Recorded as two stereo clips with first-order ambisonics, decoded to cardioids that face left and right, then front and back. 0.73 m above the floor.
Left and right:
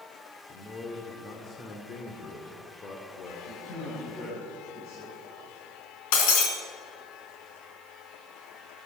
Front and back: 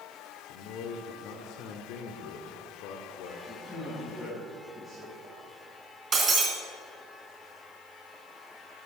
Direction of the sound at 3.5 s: 85° left.